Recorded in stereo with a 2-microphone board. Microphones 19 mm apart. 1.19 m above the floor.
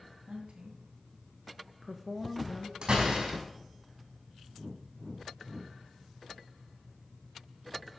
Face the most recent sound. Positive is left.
turn(degrees=-65)  # may be behind; listen again after turning